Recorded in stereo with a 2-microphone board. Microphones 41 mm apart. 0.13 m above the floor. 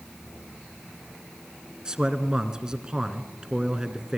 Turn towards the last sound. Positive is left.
turn(degrees=-15)  # may be behind; listen again after turning